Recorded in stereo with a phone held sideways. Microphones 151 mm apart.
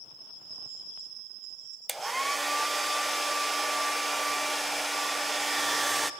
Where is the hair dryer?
Centre (ahead or behind), 0.6 m.